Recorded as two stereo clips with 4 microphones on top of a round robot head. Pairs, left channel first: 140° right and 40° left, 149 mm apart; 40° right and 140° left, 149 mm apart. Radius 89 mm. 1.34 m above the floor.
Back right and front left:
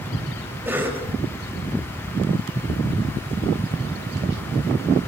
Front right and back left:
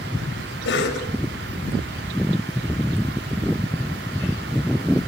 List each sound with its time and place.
0.7 s a cough: 35° right, 6 m